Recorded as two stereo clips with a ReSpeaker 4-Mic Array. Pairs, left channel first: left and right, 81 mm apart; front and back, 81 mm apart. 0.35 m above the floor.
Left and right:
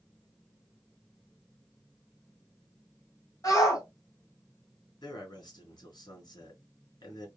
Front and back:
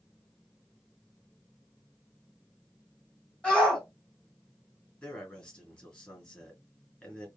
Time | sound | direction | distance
3.4 | a shout | 75° left | 1.9 m
5.0 | a man speaking | 70° left | 2.5 m